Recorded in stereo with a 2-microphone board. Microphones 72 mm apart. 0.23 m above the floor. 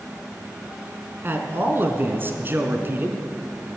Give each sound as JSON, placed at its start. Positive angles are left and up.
{"t": 1.2, "sound": "a man speaking", "side_deg": -30, "distance_m": 3.0}